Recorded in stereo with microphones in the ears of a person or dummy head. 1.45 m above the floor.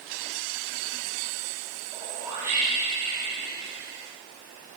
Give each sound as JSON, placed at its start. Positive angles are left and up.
{"t": 1.9, "sound": "a whoosh", "side_deg": -20, "distance_m": 10.0}